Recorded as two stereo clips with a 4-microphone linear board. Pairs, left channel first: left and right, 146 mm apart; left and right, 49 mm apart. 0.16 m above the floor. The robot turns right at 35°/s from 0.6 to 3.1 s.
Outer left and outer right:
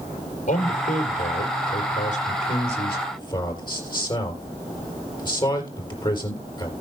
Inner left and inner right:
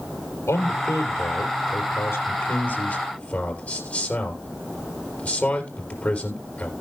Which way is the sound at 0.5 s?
60° left.